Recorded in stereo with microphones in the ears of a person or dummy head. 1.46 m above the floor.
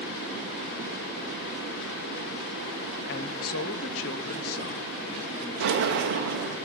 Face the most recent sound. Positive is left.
turn(degrees=-65)  # may be behind; listen again after turning